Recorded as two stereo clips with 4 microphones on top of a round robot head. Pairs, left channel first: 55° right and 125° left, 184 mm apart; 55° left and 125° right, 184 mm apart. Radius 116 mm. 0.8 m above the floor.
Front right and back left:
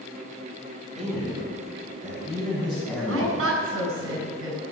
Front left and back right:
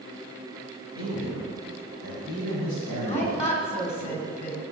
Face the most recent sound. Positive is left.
turn(degrees=110)